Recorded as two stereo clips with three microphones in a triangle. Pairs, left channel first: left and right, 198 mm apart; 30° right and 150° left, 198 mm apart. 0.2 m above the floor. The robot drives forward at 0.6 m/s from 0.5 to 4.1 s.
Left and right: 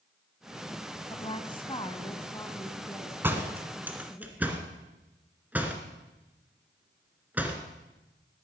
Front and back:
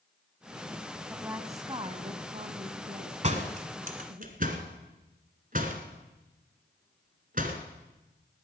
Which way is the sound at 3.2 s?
165° right.